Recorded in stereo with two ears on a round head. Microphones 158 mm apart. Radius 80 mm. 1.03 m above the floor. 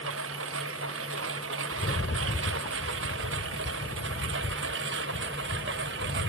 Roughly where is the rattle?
Left.